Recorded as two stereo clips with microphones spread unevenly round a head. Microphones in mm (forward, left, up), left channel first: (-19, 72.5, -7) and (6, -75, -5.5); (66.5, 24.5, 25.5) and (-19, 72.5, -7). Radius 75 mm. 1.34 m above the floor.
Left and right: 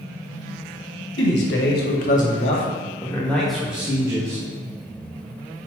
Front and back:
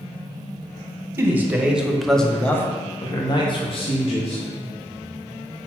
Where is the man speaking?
85° left, 1.6 m; by 4.4 s 10° right, 1.7 m.